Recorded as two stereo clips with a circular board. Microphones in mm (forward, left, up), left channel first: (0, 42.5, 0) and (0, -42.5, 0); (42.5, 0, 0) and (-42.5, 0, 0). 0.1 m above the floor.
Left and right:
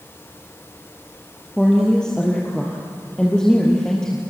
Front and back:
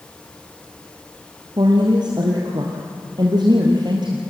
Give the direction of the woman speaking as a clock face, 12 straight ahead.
6 o'clock.